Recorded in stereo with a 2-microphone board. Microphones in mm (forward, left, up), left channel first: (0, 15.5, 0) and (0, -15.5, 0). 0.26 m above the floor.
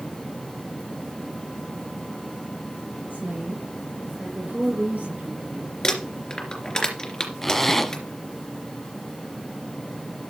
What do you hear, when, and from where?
3.1 s a woman speaking: 65° right (ahead or behind), 3.5 m; by 5.7 s 55° right (ahead or behind), 5.5 m
5.8 s crumpling: 25° left (ahead or behind), 3 m
7.4 s a zipper: 10° left (ahead or behind), 1.0 m